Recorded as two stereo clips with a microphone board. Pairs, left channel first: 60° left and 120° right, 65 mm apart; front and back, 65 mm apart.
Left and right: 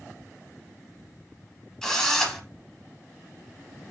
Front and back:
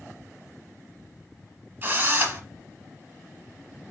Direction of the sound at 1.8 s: 140° left.